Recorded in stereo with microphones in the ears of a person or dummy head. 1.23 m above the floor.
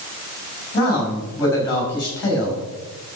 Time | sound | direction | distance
0.7 | a man speaking | 20° left (ahead or behind) | 7 m